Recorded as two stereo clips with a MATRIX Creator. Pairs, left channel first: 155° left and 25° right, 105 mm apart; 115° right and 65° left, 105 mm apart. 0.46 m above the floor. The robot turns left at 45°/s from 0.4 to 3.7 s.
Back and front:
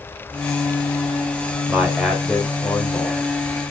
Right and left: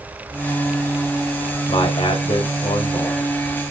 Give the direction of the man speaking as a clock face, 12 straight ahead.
3 o'clock.